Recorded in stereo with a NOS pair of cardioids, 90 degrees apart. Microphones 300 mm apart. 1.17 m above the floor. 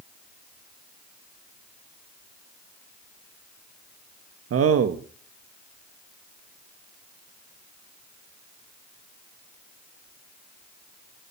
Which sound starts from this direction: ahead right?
A man speaking, at 4.5 s.